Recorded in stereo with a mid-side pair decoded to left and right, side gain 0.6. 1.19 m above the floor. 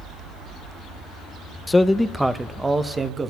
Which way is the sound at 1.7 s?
20° left.